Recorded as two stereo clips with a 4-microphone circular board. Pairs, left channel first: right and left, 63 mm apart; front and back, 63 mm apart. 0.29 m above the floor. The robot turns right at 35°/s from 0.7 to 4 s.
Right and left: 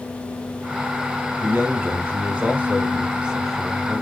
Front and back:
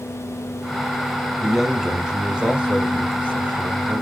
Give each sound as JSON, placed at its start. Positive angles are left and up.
{"t": 1.4, "sound": "a man speaking", "azimuth_deg": 90, "distance_m": 1.1}